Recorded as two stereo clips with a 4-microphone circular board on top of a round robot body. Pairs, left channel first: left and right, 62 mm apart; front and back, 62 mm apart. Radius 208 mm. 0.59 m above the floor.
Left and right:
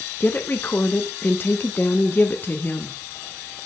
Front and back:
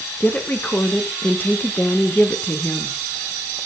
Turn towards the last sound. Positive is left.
turn(degrees=50)